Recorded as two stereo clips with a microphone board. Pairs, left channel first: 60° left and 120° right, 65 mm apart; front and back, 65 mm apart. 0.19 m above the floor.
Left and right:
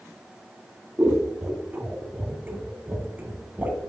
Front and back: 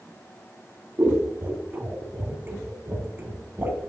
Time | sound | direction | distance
1.0 | scissors | 160° right | 1.1 m